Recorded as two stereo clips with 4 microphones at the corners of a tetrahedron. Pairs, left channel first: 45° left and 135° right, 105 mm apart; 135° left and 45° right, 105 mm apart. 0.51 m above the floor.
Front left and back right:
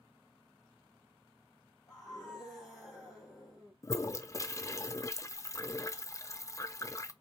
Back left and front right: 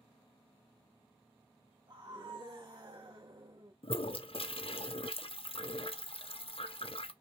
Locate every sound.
1.9 s a scream: 40° right, 2.0 m
3.8 s a toilet flushing: 105° left, 0.5 m